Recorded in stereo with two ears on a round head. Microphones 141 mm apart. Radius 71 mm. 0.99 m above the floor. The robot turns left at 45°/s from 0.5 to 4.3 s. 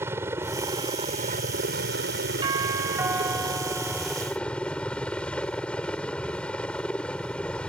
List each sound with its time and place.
0.0 s a helicopter: 15° right; by 7.7 s 175° left
2.4 s a doorbell: 125° right; by 4.3 s 150° left